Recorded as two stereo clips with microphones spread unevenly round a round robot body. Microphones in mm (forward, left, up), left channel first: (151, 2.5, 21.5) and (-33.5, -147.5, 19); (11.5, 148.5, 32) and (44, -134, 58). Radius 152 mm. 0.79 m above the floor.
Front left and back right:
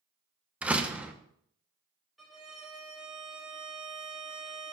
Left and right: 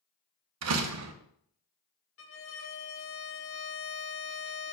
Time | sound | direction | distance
0.6 | a door slam | 55° right | 1.0 m
2.2 | a violin | 130° left | 1.1 m